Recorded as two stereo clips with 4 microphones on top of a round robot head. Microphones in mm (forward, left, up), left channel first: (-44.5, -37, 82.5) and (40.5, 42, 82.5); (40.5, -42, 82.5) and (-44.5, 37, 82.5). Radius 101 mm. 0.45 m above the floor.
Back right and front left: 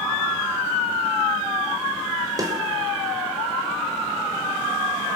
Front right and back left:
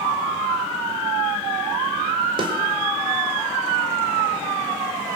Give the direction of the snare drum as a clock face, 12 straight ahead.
9 o'clock.